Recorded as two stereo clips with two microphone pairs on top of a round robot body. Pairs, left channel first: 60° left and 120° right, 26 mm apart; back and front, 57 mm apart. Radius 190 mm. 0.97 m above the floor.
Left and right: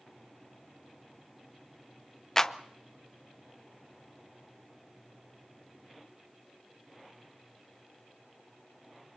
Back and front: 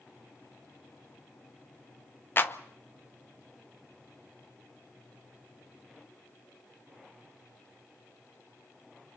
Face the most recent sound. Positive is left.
turn(degrees=125)